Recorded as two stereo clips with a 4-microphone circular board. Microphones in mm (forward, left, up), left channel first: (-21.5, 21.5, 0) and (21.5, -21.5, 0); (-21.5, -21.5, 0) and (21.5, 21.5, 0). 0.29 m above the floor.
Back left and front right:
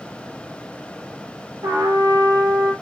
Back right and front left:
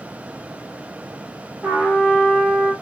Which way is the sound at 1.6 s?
30° right.